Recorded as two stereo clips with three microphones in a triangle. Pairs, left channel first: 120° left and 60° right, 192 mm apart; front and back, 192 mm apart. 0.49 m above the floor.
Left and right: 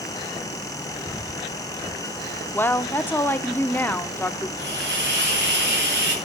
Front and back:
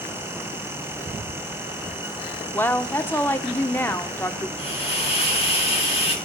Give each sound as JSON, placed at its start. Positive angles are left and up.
{"t": 2.5, "sound": "a woman speaking", "azimuth_deg": 60, "distance_m": 0.7}
{"t": 4.6, "sound": "a hiss", "azimuth_deg": -60, "distance_m": 4.0}